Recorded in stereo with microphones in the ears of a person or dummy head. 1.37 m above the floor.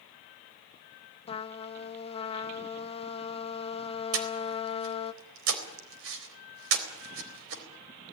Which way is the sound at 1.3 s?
30° left (ahead or behind).